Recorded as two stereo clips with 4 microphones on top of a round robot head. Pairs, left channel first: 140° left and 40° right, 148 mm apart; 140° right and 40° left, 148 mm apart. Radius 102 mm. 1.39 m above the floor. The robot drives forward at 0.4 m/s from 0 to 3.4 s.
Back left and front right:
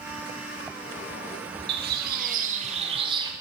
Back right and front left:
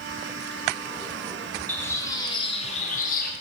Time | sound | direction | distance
1.7 | a bird | 60° right | 0.9 m